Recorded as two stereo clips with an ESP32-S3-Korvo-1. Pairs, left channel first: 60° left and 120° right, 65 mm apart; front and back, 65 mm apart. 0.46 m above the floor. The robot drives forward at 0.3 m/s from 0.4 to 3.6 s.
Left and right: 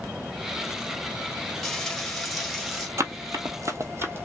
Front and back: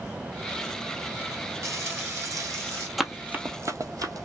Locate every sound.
1.6 s frying: 140° left, 1.5 m; by 2.9 s 150° left, 1.8 m
3.0 s running footsteps: 90° right, 0.7 m; by 4.2 s 175° right, 1.0 m